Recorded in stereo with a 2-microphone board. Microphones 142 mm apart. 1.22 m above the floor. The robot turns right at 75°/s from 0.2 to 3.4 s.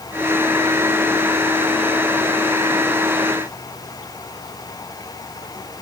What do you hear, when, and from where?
Only background noise.